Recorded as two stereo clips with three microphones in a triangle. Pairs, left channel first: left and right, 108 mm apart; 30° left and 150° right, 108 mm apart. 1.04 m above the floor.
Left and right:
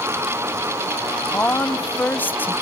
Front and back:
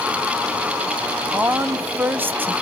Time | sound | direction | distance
1.3 | a woman speaking | 155° left | 0.9 m